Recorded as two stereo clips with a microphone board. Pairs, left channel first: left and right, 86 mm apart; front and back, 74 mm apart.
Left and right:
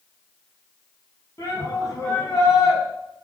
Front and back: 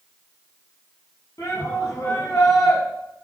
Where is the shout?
50° left, 6 m.